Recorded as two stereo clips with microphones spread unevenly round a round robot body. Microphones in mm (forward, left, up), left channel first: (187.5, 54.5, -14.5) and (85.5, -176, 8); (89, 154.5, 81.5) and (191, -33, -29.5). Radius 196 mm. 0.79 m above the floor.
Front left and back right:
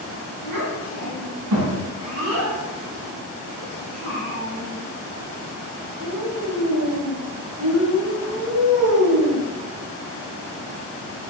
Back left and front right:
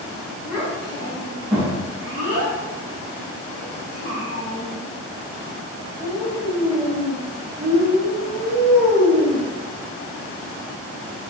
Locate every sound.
0.4 s a child speaking: 140° right, 3.5 m